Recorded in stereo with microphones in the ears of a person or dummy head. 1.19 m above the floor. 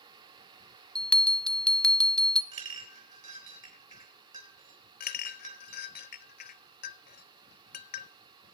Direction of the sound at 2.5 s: 35° right (ahead or behind).